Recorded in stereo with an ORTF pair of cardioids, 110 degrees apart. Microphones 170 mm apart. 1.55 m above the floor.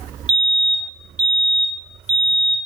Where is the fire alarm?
5° right, 2.5 m.